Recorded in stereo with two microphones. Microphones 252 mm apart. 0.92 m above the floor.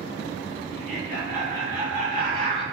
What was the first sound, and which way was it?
Laughter, 40° left (ahead or behind).